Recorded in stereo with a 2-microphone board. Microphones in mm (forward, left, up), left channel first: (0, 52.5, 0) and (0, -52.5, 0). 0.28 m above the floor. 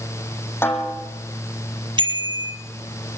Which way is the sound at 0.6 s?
20° left (ahead or behind).